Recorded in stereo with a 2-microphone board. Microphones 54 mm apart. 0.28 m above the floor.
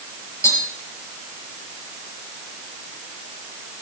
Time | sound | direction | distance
0.4 | tapping | 70° left (ahead or behind) | 6 m